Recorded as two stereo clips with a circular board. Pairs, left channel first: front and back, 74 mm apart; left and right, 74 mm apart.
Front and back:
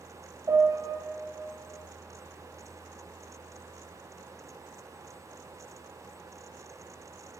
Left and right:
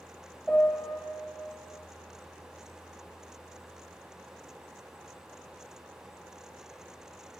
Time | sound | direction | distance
0.5 | a piano | 175° left | 1.3 m